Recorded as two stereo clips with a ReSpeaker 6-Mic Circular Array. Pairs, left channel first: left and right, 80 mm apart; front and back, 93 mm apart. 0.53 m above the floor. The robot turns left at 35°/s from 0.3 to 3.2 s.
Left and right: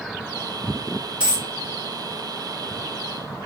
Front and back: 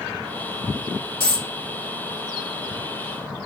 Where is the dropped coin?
15° right, 1.6 m; by 1.5 s 25° right, 1.6 m.